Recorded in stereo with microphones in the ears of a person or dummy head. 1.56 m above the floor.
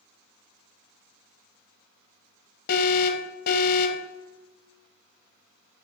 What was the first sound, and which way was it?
An alarm, 50° left (ahead or behind).